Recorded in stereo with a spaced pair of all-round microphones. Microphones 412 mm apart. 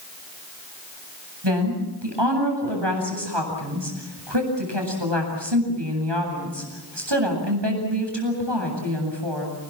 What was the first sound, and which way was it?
A woman speaking, 90° right.